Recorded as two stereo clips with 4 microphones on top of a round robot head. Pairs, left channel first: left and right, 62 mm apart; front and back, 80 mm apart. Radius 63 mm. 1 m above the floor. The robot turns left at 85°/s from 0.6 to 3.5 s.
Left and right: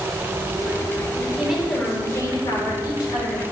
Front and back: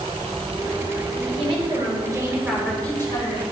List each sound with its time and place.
1.1 s a woman speaking: 145° right, 3.5 m; by 3.4 s 20° left, 3.5 m